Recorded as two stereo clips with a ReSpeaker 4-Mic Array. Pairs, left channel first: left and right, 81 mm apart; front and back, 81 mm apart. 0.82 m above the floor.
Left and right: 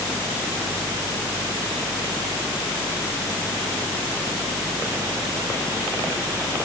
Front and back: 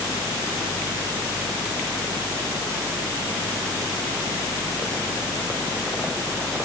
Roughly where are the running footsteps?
No running footsteps in this recording.